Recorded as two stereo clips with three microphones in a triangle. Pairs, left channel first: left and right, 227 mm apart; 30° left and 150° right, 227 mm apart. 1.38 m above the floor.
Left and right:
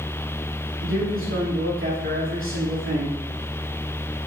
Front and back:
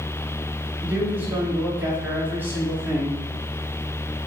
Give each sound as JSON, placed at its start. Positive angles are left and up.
{"t": 0.8, "sound": "a man speaking", "azimuth_deg": -70, "distance_m": 3.0}